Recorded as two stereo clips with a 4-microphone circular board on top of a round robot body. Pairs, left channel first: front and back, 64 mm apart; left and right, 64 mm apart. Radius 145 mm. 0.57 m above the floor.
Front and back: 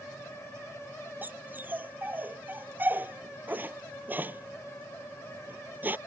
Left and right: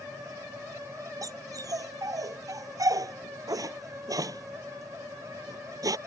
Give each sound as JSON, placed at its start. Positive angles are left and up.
{"t": 1.2, "sound": "a dog barking", "azimuth_deg": -120}